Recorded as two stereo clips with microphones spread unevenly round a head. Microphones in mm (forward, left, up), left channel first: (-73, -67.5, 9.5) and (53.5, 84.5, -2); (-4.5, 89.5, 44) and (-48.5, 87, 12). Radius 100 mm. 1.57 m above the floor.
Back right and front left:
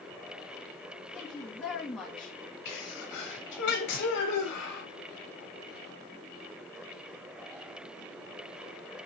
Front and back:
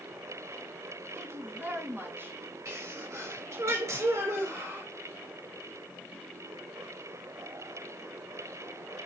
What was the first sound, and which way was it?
A woman speaking, 145° left.